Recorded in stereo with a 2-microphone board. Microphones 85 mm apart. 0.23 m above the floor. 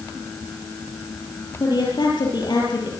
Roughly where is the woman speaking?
Left.